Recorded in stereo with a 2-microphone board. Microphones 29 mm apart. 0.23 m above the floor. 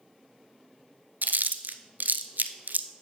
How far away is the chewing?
About 0.5 m.